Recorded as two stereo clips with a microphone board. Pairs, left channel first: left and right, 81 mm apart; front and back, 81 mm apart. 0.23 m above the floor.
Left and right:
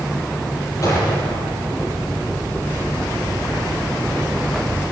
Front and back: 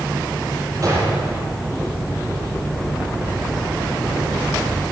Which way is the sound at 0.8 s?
135° left.